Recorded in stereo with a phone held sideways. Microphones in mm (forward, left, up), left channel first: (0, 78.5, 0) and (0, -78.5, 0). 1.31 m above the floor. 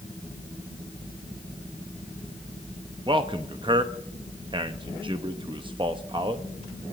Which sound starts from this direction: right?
A man speaking, at 3.1 s.